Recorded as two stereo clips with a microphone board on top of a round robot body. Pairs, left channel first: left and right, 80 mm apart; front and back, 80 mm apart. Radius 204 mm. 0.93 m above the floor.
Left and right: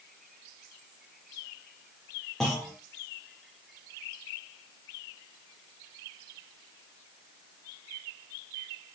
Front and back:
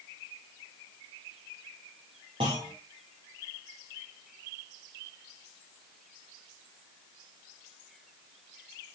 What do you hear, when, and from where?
2.4 s a clunk: 175° left, 0.6 m